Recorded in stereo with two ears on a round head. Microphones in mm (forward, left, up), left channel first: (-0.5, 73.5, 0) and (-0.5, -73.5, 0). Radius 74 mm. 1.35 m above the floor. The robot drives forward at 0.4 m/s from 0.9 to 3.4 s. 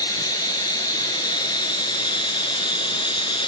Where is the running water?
25° left (ahead or behind), 1.7 m; by 3.5 s 30° left (ahead or behind), 1.4 m.